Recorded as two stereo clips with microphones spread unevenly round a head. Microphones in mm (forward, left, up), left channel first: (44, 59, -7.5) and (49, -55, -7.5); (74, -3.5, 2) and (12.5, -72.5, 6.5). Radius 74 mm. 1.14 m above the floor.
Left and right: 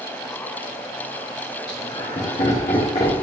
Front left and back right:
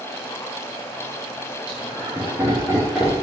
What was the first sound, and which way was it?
Laughter, 150° left.